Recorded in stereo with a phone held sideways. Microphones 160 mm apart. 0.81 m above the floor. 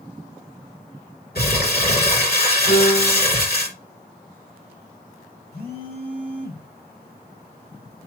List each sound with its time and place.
1.4 s crumpling: 80° left, 3 m
2.7 s a piano: 85° left, 6 m
5.5 s a phone buzzing: 75° left (ahead or behind), 2.5 m